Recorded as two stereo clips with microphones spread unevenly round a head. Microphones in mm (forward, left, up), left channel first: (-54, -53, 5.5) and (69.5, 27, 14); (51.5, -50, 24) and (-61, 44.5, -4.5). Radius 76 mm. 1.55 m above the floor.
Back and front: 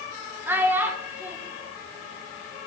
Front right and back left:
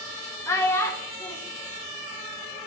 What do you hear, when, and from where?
0.5 s a child speaking: 20° right, 0.9 m